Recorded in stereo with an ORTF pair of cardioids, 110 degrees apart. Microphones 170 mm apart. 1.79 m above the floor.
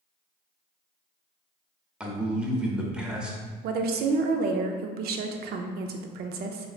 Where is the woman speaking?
70° right, 0.5 m.